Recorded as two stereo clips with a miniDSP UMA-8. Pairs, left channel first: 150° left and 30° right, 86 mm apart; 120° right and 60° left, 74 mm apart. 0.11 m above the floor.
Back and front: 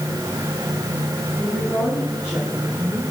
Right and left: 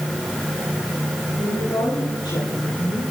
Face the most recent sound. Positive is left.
turn(degrees=-120)